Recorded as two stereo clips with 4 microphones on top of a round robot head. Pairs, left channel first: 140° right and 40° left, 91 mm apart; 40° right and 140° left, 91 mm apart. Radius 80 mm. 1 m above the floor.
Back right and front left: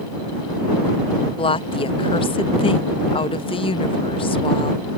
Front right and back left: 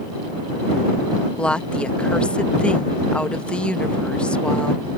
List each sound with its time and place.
1.4 s a woman speaking: 120° right